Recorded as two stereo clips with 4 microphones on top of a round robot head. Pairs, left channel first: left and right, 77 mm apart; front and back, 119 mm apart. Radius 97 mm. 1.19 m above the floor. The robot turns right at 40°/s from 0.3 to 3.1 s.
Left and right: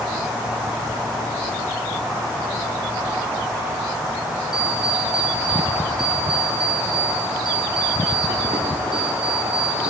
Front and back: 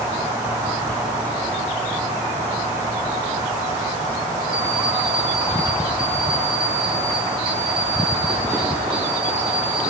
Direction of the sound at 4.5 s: 95° right.